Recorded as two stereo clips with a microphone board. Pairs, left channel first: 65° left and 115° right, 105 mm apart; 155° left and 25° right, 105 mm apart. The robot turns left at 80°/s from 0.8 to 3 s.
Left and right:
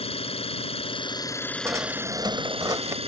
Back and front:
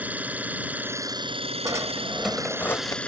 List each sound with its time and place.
0.0 s an engine running: 50° left; by 3.1 s 125° right
1.6 s a drawer: 60° right; by 3.0 s 165° right